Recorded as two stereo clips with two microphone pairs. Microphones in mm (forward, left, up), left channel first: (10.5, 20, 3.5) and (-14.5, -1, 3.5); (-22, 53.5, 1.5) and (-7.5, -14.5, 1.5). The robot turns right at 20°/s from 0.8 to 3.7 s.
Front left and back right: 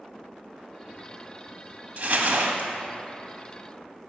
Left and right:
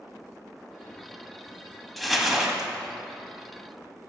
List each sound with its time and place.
2.0 s crumpling: 170° right, 0.8 m; by 2.7 s 155° right, 0.8 m